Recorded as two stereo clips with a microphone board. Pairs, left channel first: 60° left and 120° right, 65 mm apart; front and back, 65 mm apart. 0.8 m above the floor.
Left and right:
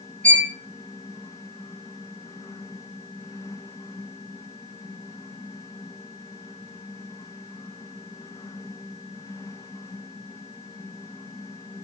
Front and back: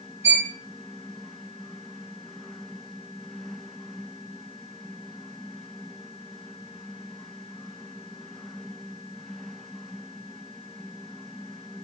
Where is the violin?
130° left, 1.2 m.